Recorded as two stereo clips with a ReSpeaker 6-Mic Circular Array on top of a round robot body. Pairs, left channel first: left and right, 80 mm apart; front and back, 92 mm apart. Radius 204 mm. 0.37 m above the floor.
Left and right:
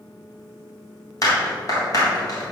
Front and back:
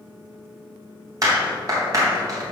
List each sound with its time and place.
1.2 s a clap: 130° left, 3.5 m